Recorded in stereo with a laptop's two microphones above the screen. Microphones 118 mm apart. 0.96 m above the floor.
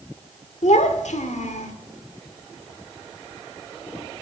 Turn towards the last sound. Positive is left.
turn(degrees=85)